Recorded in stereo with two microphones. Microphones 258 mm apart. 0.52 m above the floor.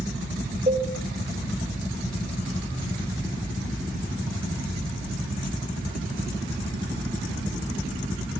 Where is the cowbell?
30° right (ahead or behind), 2.5 m.